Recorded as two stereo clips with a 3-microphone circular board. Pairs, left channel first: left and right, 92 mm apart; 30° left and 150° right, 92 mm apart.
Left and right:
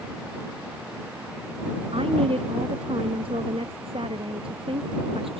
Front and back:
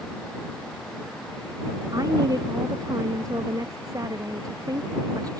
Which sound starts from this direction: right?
A woman speaking, at 1.9 s.